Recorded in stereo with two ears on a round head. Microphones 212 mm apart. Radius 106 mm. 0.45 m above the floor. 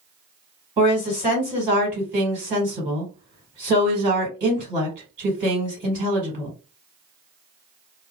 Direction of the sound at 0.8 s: 15° right (ahead or behind).